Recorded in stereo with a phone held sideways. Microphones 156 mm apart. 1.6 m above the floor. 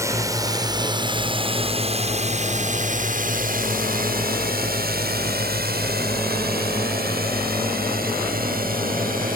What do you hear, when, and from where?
0.0 s a drone: 20° right (ahead or behind); by 9.4 s 65° right (ahead or behind)